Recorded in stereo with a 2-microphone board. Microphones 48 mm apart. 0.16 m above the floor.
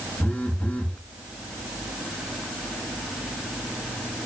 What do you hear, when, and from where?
0.2 s a phone buzzing: 25° left (ahead or behind), 1.1 m